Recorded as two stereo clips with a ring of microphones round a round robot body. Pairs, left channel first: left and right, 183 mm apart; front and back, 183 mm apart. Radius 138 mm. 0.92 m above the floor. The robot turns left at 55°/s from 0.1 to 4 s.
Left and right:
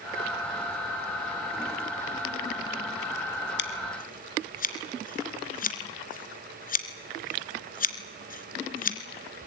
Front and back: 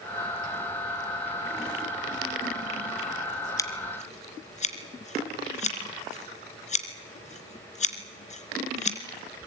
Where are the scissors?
75° left, 2.5 m; by 9.0 s 50° left, 2.5 m.